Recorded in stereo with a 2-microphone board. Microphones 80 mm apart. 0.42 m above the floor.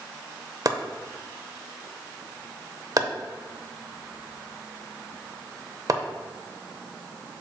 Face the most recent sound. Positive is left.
turn(degrees=-45)  # may be behind; listen again after turning